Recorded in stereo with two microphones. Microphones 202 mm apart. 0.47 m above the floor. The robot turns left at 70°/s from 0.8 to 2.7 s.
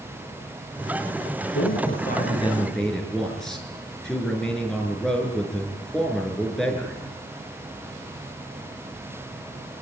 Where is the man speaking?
85° left, 6.5 m; by 7.0 s straight ahead, 6.5 m.